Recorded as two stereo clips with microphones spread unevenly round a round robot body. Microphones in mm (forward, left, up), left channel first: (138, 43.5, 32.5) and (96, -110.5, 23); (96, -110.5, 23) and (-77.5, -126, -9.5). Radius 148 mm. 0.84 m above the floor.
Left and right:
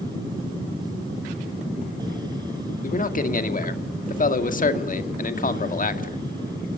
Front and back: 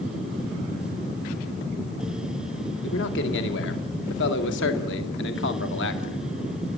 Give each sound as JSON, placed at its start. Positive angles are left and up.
{"t": 2.8, "sound": "a man speaking", "azimuth_deg": 45, "distance_m": 2.0}